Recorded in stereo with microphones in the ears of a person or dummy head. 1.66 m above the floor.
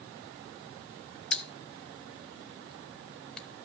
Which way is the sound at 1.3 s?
5° left (ahead or behind).